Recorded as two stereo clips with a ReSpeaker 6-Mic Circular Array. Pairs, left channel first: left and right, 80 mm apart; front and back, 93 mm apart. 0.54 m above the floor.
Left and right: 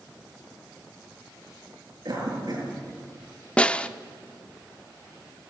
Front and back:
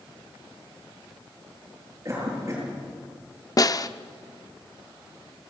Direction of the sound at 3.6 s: 20° left.